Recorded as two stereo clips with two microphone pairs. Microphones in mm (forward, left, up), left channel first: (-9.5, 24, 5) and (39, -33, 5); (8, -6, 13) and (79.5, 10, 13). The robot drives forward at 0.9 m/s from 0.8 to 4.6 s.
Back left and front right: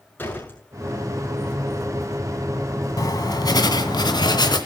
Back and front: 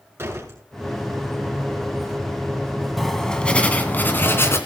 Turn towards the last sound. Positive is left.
turn(degrees=140)